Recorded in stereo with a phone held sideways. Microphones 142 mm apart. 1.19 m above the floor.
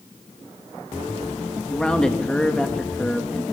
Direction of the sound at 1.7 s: 5° left (ahead or behind).